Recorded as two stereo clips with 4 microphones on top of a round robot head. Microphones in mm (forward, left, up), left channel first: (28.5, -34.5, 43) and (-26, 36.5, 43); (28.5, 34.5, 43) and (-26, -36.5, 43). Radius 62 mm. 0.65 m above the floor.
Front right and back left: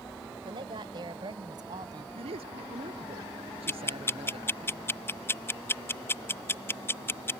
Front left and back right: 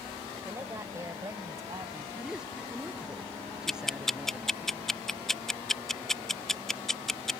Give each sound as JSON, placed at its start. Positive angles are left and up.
{"t": 0.5, "sound": "a woman speaking", "azimuth_deg": 165}
{"t": 2.1, "sound": "a man speaking", "azimuth_deg": 150}
{"t": 3.7, "sound": "ticking", "azimuth_deg": -30}